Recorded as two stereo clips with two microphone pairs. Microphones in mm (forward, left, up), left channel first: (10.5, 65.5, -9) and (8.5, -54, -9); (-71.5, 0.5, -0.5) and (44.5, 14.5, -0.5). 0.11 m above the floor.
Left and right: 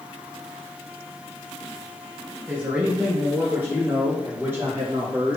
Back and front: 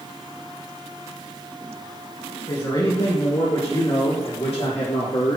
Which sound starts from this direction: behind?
A man speaking, at 2.5 s.